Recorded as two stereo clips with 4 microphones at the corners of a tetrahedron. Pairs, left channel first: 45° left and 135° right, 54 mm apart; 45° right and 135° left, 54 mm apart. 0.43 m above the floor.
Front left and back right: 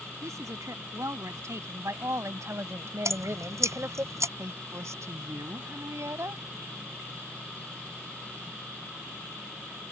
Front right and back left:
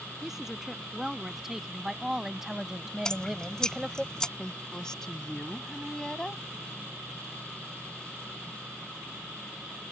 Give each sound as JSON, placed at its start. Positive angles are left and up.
{"t": 0.2, "sound": "a woman speaking", "azimuth_deg": -145}
{"t": 3.0, "sound": "dripping", "azimuth_deg": -120}
{"t": 4.4, "sound": "a woman speaking", "azimuth_deg": -120}